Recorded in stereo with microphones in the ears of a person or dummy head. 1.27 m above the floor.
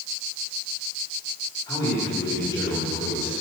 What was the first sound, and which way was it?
A man speaking, 25° left (ahead or behind).